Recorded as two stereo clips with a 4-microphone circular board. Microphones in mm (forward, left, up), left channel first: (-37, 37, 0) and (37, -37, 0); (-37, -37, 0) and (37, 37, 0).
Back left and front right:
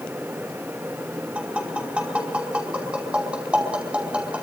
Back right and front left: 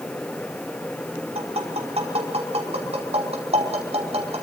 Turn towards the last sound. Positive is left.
turn(degrees=35)